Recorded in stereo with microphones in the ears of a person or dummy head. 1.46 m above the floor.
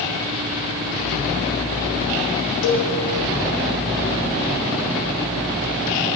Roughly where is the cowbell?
Left.